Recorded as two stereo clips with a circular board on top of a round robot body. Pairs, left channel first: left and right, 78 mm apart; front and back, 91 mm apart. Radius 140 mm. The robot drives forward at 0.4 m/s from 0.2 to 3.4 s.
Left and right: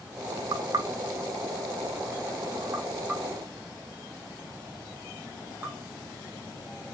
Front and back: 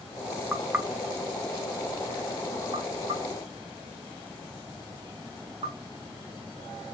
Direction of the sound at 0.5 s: 100° right.